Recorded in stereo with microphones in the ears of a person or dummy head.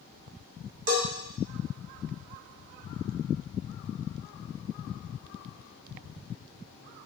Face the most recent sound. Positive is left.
turn(degrees=-50)  # may be behind; listen again after turning